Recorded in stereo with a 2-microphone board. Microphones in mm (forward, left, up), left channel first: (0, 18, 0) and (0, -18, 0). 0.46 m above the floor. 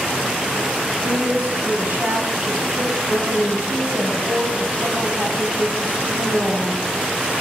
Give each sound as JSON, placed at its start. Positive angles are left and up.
{"t": 1.0, "sound": "a woman speaking", "side_deg": -55, "distance_m": 4.0}